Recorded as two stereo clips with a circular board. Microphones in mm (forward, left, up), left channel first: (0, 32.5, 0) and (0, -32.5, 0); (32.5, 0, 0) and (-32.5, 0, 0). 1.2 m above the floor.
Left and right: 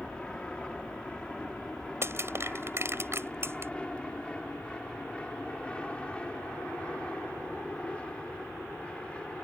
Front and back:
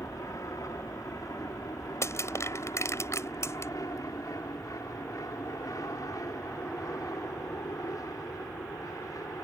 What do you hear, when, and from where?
0.0 s an aircraft: 15° left; by 9.4 s 20° left
2.0 s crushing: 40° right